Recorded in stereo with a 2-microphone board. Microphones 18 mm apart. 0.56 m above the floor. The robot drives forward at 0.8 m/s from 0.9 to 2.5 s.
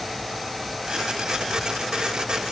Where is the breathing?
I don't hear breathing.